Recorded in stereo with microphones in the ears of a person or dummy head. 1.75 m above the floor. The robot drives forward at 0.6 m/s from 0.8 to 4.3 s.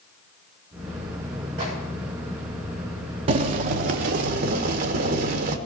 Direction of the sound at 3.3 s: 45° right (ahead or behind).